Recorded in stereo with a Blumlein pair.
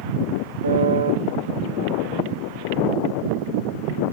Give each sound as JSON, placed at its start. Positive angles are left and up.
{"t": 0.6, "sound": "a piano", "azimuth_deg": -70, "distance_m": 1.6}